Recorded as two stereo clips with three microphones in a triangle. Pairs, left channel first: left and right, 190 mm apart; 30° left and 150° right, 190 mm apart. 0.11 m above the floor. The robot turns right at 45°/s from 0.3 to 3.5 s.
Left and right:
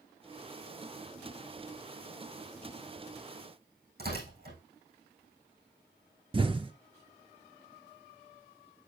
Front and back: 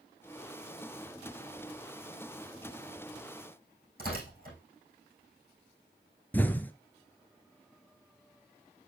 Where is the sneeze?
I don't hear a sneeze.